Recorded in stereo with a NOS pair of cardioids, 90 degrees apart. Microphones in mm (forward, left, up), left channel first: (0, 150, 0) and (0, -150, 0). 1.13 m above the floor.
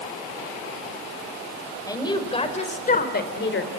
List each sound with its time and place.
1.9 s a woman speaking: 10° left, 4.5 m; by 3.7 s 45° left, 3.5 m